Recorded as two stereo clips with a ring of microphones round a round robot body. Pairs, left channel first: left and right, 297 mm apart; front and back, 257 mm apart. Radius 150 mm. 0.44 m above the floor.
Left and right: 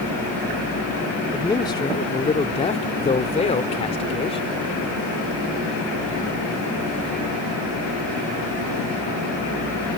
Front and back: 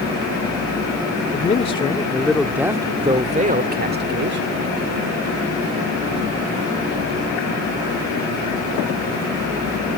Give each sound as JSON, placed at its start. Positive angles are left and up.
{"t": 1.3, "sound": "a man speaking", "azimuth_deg": 20}